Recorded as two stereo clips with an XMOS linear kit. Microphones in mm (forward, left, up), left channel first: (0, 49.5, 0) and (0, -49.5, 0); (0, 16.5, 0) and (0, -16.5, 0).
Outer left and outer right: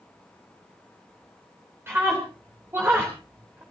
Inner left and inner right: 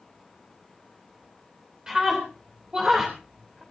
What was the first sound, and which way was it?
A scream, 25° right (ahead or behind).